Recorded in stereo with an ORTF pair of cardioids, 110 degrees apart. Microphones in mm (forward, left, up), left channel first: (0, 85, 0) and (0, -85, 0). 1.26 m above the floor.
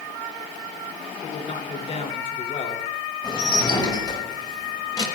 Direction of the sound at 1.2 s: 40° left.